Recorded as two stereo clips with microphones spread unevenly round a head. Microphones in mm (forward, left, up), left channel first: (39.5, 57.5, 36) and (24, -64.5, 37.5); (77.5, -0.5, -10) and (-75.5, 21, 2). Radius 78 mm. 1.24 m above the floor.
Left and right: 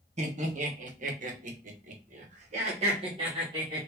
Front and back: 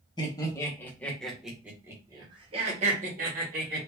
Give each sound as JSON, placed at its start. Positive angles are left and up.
{"t": 0.2, "sound": "laughter", "azimuth_deg": -70, "distance_m": 1.5}